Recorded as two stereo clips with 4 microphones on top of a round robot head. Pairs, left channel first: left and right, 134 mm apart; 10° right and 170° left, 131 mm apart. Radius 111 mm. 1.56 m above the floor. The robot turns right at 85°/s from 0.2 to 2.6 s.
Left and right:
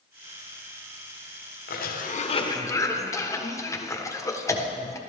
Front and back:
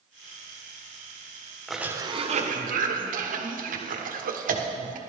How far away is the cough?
About 1.5 m.